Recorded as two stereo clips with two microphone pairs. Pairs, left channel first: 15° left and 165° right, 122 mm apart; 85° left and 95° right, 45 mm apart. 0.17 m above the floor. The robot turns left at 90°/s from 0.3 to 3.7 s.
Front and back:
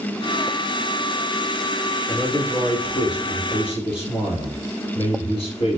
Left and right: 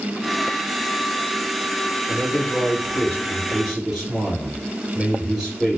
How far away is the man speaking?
About 2 m.